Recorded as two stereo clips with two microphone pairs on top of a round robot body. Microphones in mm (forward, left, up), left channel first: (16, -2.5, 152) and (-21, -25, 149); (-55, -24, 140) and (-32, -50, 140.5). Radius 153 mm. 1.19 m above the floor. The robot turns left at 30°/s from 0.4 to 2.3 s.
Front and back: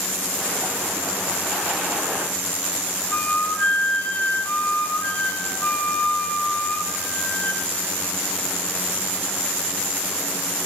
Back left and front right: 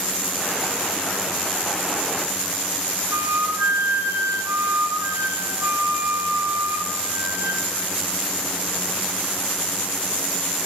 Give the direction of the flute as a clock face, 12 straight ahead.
1 o'clock.